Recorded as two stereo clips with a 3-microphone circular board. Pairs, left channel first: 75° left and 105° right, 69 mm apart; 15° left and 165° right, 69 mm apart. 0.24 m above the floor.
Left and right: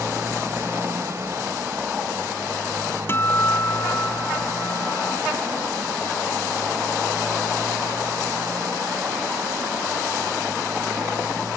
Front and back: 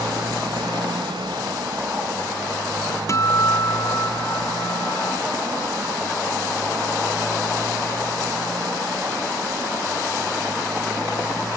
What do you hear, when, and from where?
0.0 s a motorcycle: 160° right; by 11.6 s 140° right
3.1 s a guitar: 35° left